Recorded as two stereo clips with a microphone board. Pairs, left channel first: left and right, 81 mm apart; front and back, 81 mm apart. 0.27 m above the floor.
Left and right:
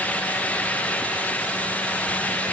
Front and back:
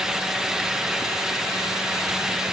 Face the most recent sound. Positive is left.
No sound to turn to.